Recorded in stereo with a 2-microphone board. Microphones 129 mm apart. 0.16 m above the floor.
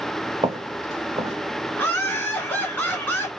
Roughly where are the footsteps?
Right.